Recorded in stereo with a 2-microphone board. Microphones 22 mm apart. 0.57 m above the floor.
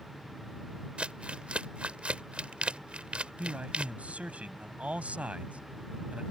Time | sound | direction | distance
1.0 | crumpling | 60° right (ahead or behind) | ?
3.4 | a man speaking | 75° right (ahead or behind) | ?